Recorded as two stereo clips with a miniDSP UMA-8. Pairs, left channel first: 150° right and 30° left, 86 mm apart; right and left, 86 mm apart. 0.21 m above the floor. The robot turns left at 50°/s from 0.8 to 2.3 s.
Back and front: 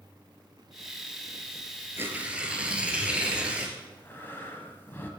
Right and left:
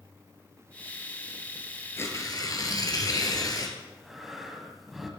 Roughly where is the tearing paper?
Ahead right.